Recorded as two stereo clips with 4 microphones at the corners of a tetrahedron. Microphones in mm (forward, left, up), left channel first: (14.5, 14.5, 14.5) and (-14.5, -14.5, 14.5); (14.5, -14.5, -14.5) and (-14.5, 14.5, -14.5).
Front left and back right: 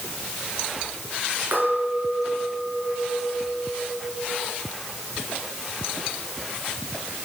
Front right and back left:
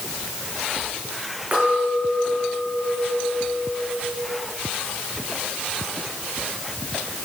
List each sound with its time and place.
1.5 s a clink: 165° right, 4.5 m